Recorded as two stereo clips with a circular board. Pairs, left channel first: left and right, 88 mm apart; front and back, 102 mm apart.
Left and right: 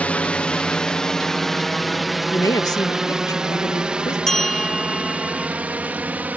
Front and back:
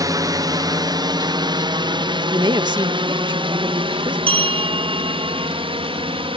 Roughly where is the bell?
Behind.